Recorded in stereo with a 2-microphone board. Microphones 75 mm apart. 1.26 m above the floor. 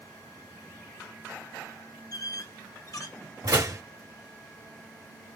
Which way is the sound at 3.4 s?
45° right (ahead or behind).